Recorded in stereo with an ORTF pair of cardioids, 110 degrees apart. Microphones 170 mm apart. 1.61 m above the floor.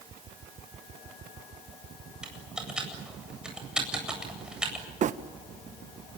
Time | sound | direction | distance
2.2 | typing on a keyboard | 5° right | 8 m
5.0 | a phone buzzing | 50° right | 1.3 m